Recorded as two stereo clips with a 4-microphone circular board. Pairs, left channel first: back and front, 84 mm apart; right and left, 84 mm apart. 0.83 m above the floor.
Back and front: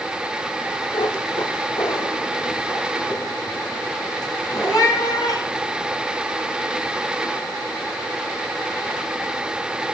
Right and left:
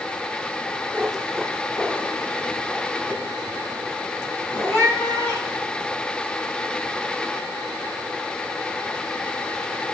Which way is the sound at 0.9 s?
165° left.